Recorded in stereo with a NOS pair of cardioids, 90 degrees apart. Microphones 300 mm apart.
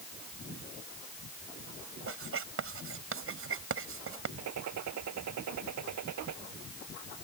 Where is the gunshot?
65° right.